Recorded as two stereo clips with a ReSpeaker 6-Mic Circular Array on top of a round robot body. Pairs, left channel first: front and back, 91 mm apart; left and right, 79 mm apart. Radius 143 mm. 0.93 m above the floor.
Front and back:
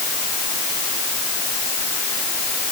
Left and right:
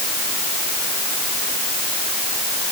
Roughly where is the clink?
I don't hear a clink.